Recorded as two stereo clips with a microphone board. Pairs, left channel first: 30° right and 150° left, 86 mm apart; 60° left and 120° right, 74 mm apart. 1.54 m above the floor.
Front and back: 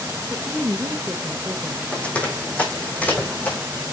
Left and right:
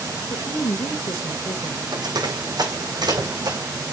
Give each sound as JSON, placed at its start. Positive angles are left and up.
{"t": 0.3, "sound": "a woman speaking", "azimuth_deg": 85, "distance_m": 1.9}
{"t": 1.9, "sound": "running footsteps", "azimuth_deg": -105, "distance_m": 5.0}